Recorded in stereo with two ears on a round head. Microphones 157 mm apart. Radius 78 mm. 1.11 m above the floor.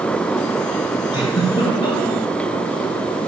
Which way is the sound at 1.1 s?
30° left (ahead or behind).